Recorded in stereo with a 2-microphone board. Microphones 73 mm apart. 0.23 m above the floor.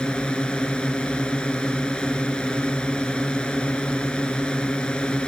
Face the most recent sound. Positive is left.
turn(degrees=15)  # may be behind; listen again after turning